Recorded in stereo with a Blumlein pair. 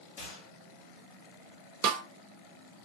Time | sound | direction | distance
0.2 | a gunshot | 50° left | 1.2 m
1.8 | a snare drum | 35° right | 0.5 m